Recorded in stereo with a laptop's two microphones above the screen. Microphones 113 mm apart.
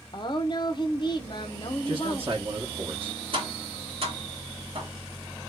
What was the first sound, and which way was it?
A woman speaking, 40° left (ahead or behind).